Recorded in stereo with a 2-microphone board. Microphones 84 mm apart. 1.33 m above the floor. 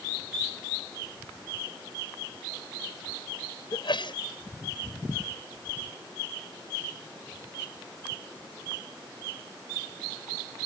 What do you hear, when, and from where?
3.7 s a sneeze: 65° left (ahead or behind)